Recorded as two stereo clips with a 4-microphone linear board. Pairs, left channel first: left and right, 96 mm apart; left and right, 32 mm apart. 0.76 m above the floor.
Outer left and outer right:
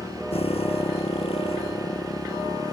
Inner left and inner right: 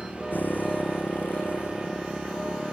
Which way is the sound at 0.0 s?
85° left.